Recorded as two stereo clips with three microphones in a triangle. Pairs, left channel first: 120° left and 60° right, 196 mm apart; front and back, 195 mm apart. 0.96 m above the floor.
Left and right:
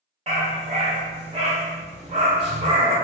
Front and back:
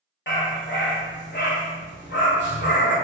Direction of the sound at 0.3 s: 5° right.